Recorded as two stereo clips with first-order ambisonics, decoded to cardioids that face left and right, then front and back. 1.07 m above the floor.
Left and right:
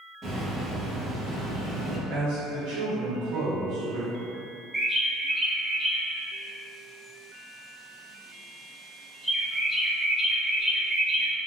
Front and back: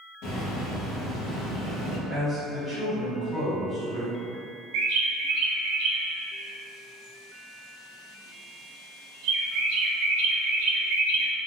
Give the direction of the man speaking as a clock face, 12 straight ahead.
3 o'clock.